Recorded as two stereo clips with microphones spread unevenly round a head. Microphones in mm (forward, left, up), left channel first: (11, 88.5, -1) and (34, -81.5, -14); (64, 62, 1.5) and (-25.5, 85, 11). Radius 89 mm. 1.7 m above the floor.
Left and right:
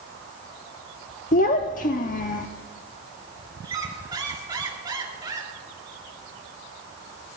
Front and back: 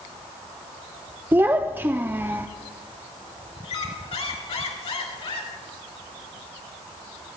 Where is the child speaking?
110° left, 0.6 m.